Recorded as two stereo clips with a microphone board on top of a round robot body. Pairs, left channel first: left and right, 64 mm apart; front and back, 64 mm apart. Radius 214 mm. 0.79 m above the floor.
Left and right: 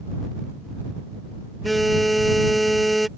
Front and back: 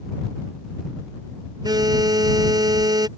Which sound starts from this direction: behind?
A phone buzzing, at 1.6 s.